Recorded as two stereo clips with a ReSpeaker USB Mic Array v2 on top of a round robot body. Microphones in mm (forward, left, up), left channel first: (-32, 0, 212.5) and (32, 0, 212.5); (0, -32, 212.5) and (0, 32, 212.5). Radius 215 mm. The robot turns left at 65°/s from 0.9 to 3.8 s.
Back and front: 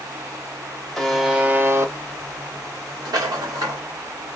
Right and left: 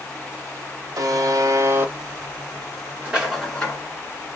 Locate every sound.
1.0 s a buzzer: 100° left, 1.1 m; by 1.9 s 35° left, 1.1 m
3.0 s a rattle: 20° left, 0.7 m; by 3.8 s 30° right, 0.7 m